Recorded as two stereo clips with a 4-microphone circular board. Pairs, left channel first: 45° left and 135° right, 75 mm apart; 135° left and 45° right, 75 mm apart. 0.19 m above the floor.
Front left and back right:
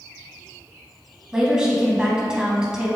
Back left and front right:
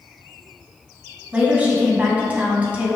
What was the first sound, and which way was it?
A woman speaking, 75° right.